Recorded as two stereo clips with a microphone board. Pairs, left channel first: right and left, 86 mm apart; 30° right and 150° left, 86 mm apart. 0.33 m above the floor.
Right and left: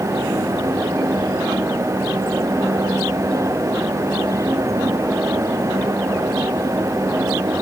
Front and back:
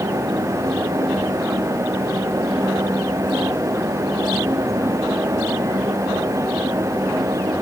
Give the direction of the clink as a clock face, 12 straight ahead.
No clink in this recording.